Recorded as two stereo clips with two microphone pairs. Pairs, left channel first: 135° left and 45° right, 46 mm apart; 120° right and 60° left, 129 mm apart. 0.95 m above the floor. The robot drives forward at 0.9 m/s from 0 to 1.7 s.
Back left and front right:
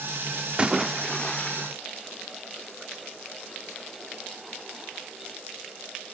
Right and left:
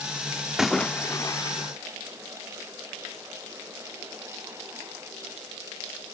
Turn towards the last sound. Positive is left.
turn(degrees=-175)